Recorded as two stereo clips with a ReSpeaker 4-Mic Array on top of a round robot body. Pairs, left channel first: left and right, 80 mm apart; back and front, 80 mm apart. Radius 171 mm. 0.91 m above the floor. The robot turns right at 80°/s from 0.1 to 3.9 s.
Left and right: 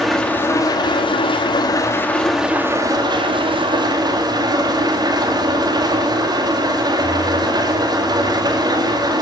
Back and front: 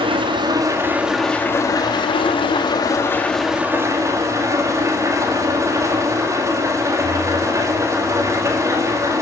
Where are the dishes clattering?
No dishes clattering in this recording.